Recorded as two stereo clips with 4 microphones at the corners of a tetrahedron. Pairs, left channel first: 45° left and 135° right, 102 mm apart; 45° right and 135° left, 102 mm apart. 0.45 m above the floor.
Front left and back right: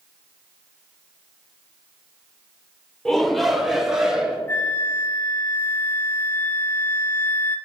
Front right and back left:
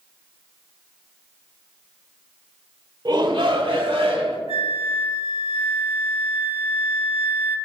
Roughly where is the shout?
Behind left.